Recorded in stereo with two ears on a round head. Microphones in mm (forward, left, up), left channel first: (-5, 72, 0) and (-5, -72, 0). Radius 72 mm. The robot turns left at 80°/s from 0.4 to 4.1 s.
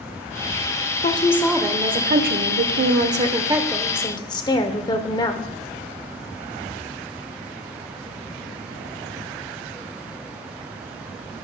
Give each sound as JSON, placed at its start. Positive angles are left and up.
{"t": 1.0, "sound": "a woman speaking", "azimuth_deg": 40, "distance_m": 0.8}